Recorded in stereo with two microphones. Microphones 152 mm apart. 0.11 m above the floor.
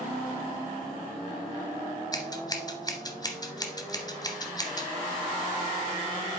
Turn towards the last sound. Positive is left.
turn(degrees=25)  # may be behind; listen again after turning